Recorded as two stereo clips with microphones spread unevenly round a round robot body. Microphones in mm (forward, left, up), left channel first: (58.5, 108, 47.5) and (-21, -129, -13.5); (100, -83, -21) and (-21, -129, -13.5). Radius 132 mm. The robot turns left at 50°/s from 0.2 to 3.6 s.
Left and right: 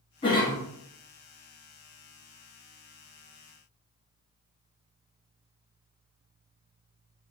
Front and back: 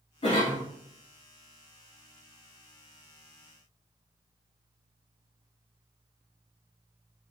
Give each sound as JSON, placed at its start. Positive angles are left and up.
{"t": 0.2, "sound": "a cough", "azimuth_deg": -5, "distance_m": 1.6}